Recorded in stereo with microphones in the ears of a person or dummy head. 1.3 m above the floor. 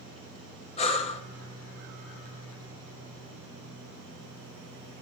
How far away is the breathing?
About 0.9 m.